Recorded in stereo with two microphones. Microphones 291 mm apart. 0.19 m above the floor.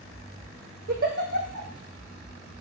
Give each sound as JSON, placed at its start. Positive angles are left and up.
{"t": 0.9, "sound": "a giggle", "side_deg": -50, "distance_m": 1.7}